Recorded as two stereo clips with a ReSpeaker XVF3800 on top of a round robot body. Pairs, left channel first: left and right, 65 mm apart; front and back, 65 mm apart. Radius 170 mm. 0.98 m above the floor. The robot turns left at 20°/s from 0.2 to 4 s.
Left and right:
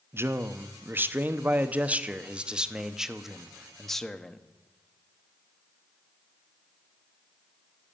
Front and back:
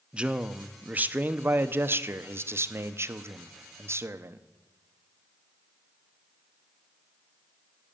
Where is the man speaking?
115° right, 0.8 m; by 4.4 s 170° left, 0.8 m.